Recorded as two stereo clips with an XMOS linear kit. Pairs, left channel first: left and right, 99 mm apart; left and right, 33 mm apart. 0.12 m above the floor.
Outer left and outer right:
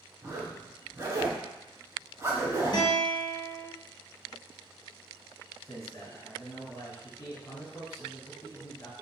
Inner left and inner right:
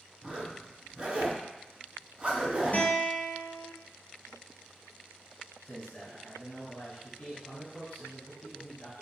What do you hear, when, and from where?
0.2 s a zipper: 30° right (ahead or behind), 0.8 m
2.7 s a guitar: 45° left (ahead or behind), 0.8 m
5.7 s a man speaking: 30° left (ahead or behind), 1.3 m